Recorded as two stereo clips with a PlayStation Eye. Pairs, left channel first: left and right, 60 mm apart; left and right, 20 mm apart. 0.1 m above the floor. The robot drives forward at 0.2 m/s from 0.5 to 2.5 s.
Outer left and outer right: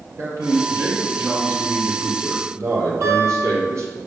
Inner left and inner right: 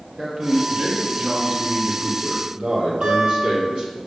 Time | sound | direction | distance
0.2 | a man speaking | 55° right (ahead or behind) | 3 m
3.0 | a guitar | 65° right (ahead or behind) | 3.5 m